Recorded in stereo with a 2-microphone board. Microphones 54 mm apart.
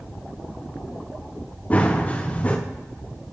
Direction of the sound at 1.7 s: 25° left (ahead or behind).